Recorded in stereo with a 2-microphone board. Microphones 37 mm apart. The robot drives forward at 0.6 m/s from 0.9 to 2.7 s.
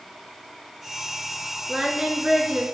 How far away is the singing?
About 3.5 m.